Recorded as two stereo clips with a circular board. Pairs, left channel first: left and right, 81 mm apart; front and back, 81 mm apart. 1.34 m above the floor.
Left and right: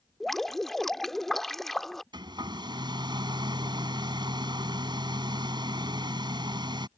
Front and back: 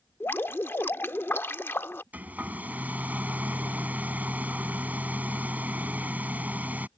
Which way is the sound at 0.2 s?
5° left.